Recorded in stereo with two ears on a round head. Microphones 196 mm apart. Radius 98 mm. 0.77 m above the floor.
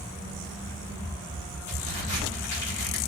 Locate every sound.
1.7 s a crack: 55° left (ahead or behind), 5.5 m